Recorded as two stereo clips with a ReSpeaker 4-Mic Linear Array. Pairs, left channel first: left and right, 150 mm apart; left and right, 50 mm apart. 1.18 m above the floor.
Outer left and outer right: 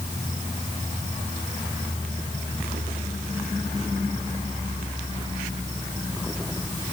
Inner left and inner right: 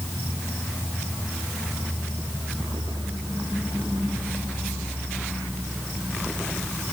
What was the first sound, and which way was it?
Only background noise.